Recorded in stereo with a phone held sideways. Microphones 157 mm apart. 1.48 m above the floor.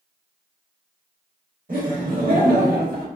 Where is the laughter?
65° right (ahead or behind), 1.3 m; by 3.1 s 70° right (ahead or behind), 1.2 m.